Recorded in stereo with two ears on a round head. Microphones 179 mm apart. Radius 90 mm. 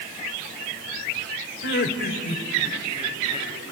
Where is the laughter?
60° left (ahead or behind), 2.5 m; by 3.5 s 25° left (ahead or behind), 4 m.